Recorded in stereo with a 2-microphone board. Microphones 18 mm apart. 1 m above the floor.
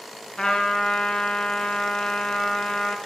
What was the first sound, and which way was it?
A trumpet, 55° left (ahead or behind).